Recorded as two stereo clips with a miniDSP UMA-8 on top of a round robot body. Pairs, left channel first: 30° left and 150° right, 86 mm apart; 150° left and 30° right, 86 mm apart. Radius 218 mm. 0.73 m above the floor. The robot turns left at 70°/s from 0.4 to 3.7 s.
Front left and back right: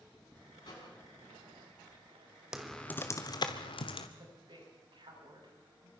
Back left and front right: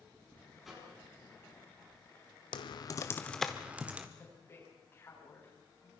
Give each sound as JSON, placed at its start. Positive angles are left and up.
{"t": 0.6, "sound": "a microwave", "azimuth_deg": 60, "distance_m": 7.5}
{"t": 2.5, "sound": "typing on a keyboard", "azimuth_deg": 125, "distance_m": 1.0}
{"t": 4.2, "sound": "a woman speaking", "azimuth_deg": -150, "distance_m": 8.5}